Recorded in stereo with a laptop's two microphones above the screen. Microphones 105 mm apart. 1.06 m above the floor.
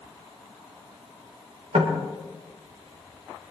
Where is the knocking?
80° right, 3 m.